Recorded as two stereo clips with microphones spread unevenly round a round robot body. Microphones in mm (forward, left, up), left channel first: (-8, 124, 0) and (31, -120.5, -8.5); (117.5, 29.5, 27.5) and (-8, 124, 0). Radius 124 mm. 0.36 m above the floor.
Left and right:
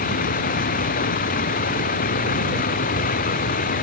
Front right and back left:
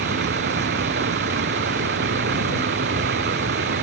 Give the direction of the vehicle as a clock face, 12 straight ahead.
7 o'clock.